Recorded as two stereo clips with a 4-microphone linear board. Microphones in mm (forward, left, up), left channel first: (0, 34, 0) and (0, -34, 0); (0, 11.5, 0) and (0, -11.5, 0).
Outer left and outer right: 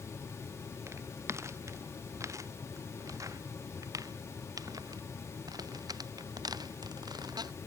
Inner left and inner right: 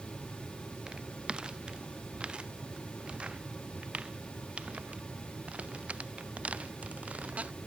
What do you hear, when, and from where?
0.9 s footsteps: 40° right (ahead or behind); by 7.5 s 75° right (ahead or behind)